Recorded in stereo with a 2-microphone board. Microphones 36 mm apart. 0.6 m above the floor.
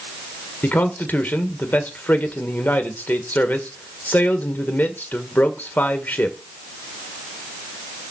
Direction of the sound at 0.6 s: 55° left (ahead or behind).